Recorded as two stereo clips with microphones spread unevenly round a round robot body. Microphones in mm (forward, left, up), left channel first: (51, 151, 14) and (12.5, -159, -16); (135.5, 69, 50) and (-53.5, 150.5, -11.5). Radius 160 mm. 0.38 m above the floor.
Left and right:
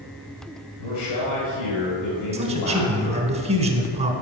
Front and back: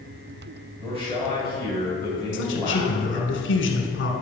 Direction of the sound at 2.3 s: 45° right.